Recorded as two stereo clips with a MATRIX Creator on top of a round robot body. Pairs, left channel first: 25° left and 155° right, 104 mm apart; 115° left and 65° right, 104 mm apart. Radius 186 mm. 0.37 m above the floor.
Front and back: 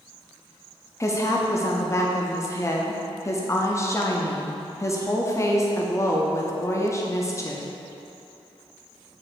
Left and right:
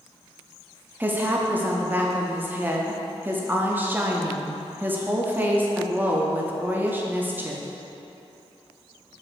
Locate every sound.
1.0 s a woman speaking: 10° right, 0.9 m